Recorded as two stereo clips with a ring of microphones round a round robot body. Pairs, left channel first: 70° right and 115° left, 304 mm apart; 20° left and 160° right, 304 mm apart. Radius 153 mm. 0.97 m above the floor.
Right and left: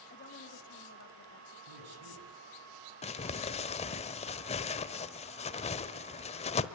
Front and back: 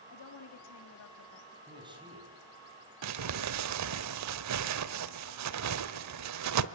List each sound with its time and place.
0.1 s a woman speaking: 10° right, 3 m; by 1.6 s 25° right, 2.5 m
1.7 s a man speaking: 125° left, 7 m
3.0 s crumpling: 135° right, 1.0 m